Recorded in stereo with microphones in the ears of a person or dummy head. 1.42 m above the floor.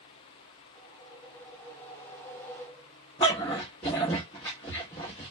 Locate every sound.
0.8 s a whoosh: 10° left (ahead or behind), 0.8 m
3.2 s a dog barking: 10° left (ahead or behind), 0.8 m